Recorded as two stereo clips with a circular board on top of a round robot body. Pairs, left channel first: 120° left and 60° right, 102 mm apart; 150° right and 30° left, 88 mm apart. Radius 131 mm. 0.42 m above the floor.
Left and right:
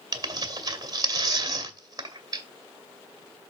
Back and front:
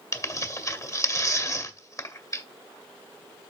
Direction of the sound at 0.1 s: 105° right.